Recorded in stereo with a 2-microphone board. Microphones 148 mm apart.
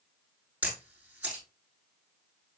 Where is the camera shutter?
10° right (ahead or behind), 6.5 m.